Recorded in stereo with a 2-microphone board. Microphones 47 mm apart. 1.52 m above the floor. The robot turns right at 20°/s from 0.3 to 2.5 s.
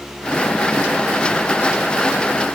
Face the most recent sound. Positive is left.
No sound to turn to.